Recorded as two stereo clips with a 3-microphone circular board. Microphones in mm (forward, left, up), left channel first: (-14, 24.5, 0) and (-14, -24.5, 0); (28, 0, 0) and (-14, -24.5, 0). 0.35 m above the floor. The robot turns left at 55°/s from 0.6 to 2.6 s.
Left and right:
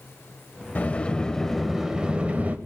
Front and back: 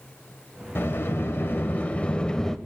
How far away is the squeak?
I don't hear a squeak.